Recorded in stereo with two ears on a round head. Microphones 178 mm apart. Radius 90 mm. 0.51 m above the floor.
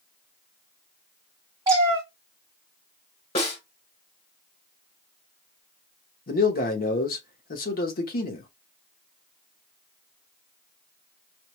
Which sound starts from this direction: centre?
A cat meowing, at 1.7 s.